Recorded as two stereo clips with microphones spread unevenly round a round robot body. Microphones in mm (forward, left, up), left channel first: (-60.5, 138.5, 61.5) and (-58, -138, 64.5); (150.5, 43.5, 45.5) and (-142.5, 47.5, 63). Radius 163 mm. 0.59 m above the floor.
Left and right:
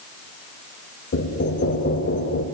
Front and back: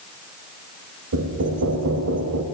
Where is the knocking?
140° left, 3 m.